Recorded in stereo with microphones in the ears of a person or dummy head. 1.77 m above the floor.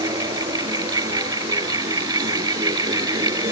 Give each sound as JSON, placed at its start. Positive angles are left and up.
{"t": 0.0, "sound": "a fan", "side_deg": -25}